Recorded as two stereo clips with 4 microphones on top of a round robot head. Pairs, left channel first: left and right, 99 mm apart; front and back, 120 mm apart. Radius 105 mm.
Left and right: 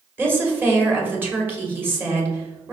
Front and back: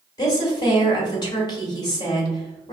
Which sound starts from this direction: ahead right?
A woman speaking, at 0.2 s.